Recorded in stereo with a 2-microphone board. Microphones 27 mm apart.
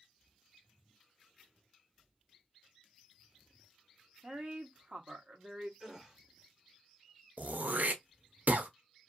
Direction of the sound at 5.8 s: 15° right (ahead or behind).